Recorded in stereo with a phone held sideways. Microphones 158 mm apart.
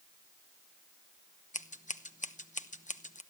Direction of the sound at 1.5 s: 50° left (ahead or behind).